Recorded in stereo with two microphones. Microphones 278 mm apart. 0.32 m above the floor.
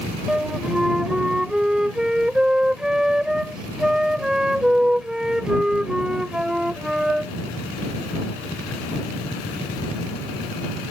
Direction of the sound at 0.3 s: Centre (ahead or behind).